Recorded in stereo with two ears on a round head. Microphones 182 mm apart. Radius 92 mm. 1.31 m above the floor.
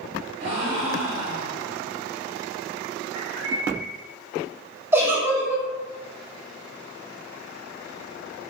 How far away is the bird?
About 1.8 m.